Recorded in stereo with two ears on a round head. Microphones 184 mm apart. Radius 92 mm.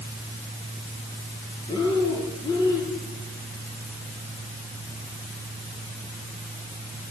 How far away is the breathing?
About 6 m.